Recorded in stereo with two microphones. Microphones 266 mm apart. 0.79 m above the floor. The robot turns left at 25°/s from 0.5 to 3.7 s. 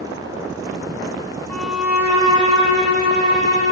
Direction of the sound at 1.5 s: 5° left.